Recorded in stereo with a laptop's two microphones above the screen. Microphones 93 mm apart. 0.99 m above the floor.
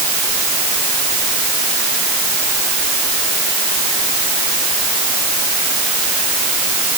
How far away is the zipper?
I don't hear a zipper.